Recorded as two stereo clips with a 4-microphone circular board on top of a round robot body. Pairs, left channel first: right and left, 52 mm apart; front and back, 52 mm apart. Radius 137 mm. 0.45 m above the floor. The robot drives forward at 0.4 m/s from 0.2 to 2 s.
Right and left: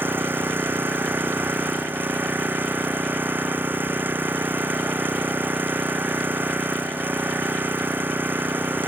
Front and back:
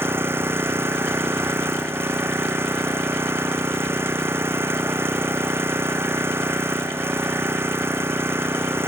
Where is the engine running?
135° left; by 8.9 s 140° left.